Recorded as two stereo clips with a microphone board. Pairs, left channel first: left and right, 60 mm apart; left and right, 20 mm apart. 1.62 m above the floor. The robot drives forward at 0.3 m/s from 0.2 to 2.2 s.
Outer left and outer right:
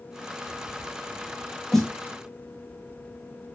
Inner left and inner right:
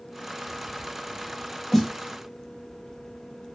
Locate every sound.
1.7 s a snare drum: 5° left (ahead or behind), 1.1 m